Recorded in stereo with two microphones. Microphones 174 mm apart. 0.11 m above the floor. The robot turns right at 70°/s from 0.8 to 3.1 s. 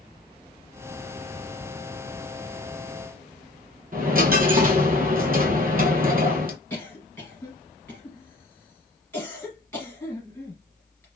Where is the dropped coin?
55° right (ahead or behind), 0.6 m.